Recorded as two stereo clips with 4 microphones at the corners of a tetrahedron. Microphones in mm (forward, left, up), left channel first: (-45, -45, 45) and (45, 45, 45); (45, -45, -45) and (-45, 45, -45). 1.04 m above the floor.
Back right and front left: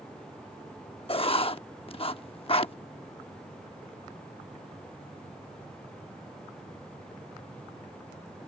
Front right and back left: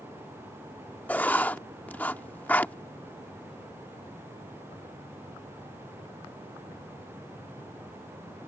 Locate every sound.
1.1 s writing: 120° right